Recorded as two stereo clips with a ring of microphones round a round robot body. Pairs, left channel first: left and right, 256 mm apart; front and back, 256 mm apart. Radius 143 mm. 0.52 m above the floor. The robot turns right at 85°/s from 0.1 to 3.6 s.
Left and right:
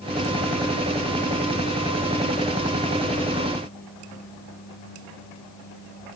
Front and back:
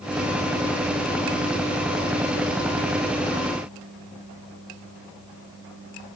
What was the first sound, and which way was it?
Only background noise.